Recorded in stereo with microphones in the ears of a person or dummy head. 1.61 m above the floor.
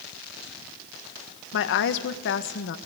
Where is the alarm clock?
No alarm clock in this recording.